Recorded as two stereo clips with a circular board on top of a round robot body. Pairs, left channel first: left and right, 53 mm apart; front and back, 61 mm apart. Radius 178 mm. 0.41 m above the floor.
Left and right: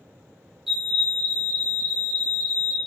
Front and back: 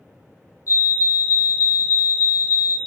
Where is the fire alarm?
5° right, 3 m.